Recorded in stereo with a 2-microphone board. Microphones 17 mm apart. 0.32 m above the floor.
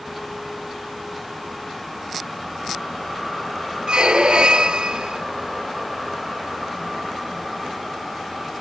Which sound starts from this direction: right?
A squeak, at 3.9 s.